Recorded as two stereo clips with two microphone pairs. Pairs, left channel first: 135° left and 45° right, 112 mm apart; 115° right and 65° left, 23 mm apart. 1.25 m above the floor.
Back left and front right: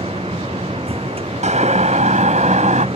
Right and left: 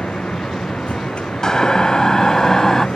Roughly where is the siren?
Ahead right.